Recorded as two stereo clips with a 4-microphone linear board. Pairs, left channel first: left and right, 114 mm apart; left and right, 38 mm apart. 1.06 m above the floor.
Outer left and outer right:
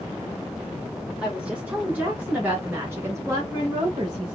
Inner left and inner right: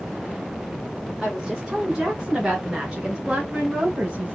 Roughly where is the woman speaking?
Centre.